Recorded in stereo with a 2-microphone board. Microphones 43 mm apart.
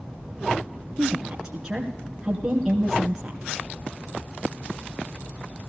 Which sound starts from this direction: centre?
A woman speaking, at 1.0 s.